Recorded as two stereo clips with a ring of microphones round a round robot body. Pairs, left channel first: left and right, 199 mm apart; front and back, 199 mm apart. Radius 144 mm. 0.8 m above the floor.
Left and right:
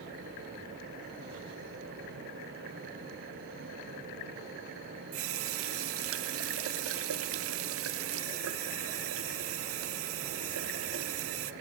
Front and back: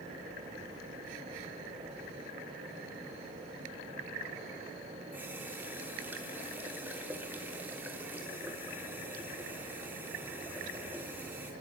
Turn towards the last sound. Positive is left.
turn(degrees=-95)